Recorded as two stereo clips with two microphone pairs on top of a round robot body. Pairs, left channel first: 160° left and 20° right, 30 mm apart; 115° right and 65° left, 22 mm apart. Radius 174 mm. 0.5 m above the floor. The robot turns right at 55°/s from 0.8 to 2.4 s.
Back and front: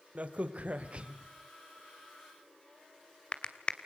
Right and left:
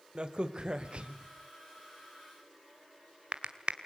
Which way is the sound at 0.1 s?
20° left.